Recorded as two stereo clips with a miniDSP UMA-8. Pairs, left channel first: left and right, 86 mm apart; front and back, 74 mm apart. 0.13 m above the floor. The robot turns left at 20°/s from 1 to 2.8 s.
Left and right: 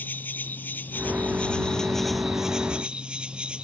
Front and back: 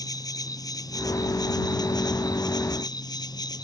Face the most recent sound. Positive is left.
turn(degrees=-15)